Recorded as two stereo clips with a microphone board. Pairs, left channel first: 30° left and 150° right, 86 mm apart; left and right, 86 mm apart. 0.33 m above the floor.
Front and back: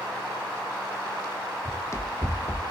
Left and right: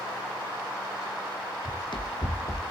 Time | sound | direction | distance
1.6 | running footsteps | 85° left | 0.7 m